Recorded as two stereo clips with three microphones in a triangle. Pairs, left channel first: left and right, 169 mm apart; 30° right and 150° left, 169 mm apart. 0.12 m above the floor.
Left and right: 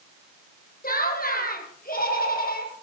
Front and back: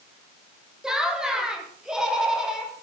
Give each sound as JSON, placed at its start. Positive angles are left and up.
{"t": 0.8, "sound": "laughter", "azimuth_deg": 65, "distance_m": 3.0}